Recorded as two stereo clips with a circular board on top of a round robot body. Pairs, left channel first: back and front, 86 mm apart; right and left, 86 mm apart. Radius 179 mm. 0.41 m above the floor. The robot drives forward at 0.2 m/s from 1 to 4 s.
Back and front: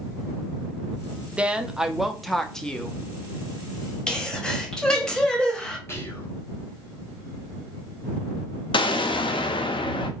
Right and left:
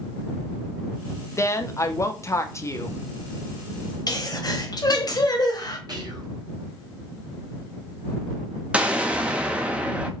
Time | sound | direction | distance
1.4 | a woman speaking | 65° right | 0.8 m
4.1 | a sneeze | 100° right | 1.3 m
5.9 | whispering | 125° left | 1.6 m
8.7 | an explosion | 165° left | 0.6 m